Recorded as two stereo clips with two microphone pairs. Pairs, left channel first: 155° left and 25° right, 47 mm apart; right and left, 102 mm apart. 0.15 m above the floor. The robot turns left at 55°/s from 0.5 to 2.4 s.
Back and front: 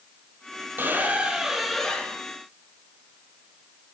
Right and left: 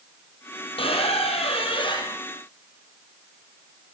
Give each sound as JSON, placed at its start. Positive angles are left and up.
{"t": 0.8, "sound": "a squeak", "azimuth_deg": -65, "distance_m": 2.5}